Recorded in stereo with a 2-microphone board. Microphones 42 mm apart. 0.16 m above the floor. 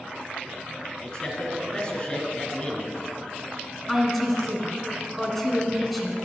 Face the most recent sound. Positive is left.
turn(degrees=0)  # may be behind; listen again after turning